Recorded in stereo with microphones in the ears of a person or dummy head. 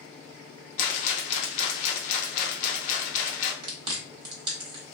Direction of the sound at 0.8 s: 45° left (ahead or behind).